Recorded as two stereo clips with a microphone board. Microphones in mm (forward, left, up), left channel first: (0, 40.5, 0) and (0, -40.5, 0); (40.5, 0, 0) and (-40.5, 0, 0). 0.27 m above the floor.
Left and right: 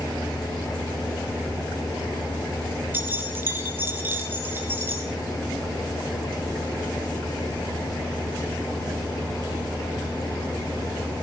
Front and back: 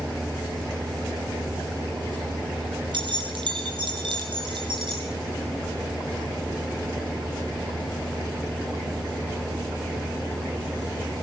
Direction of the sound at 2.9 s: 155° right.